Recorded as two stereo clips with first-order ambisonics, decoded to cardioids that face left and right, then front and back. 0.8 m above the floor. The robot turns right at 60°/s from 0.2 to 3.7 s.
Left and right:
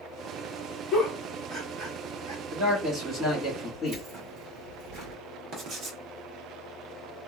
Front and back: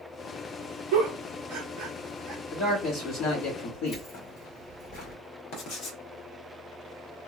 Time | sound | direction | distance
0.9 | a giggle | 165° left | 1.4 m
2.5 | a man speaking | 55° right | 1.6 m
3.9 | keys jangling | 45° right | 1.3 m
5.5 | writing | 40° right | 0.9 m